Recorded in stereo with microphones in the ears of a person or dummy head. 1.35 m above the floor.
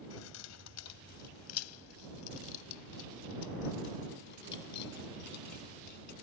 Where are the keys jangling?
75° left (ahead or behind); by 6.1 s 55° left (ahead or behind).